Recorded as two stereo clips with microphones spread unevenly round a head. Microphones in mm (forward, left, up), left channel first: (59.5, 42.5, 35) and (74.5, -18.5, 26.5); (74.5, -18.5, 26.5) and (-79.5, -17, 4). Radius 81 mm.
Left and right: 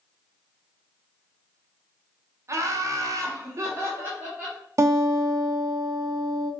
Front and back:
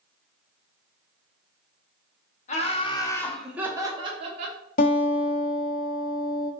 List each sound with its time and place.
2.5 s laughter: 45° right, 1.0 m; by 4.6 s 145° right, 1.2 m
4.8 s a guitar: 35° right, 0.9 m